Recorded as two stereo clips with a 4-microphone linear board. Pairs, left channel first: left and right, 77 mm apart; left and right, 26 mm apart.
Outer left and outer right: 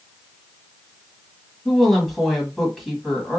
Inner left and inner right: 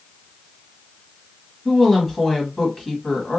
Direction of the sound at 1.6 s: Centre (ahead or behind).